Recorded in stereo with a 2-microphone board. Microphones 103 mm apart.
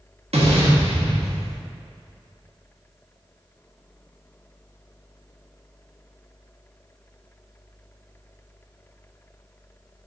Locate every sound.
0.3 s an explosion: 75° right (ahead or behind), 1.4 m